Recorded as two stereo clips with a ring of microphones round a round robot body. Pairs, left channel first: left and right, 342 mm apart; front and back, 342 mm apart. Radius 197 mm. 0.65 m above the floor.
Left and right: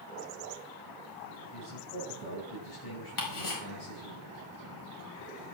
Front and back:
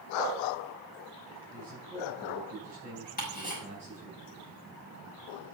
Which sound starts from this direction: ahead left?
Ticking, at 3.2 s.